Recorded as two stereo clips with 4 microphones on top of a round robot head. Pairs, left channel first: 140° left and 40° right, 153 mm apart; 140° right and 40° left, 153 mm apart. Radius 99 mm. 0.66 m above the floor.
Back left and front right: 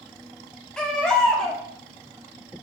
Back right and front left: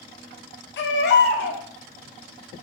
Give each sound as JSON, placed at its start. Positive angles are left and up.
{"t": 0.8, "sound": "a baby crying", "azimuth_deg": -135, "distance_m": 0.5}